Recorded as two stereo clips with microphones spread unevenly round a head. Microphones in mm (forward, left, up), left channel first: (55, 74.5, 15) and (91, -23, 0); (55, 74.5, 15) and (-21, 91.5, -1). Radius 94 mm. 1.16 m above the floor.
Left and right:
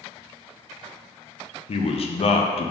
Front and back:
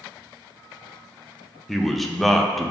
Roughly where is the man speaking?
Left.